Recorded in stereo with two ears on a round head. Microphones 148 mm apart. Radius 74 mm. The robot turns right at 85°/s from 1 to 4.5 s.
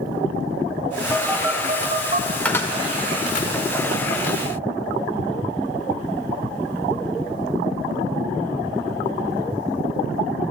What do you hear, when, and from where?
1.1 s a phone buzzing: 5° left (ahead or behind), 1.1 m; by 2.4 s 40° right (ahead or behind), 1.1 m
2.5 s a cupboard door: 5° left (ahead or behind), 1.4 m; by 3.5 s 45° left (ahead or behind), 1.4 m